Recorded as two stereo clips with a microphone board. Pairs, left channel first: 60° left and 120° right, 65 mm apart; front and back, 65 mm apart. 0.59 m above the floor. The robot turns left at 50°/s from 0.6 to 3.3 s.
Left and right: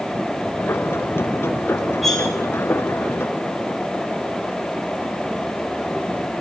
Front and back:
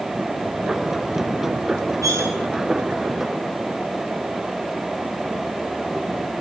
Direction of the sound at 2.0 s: 150° left.